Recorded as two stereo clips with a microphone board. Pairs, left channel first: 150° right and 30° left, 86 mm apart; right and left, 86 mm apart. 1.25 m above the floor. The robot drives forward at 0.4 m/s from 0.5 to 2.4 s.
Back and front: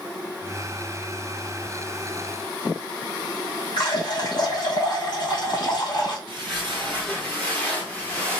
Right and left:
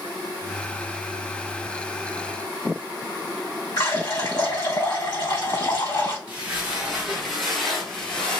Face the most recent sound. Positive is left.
turn(degrees=-105)